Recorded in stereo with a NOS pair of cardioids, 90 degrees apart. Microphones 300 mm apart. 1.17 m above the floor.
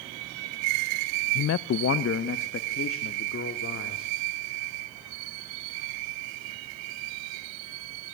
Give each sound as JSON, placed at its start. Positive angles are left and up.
{"t": 1.4, "sound": "a man speaking", "azimuth_deg": 55, "distance_m": 0.5}